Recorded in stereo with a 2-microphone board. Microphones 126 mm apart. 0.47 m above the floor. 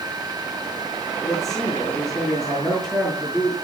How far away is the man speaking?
About 7 m.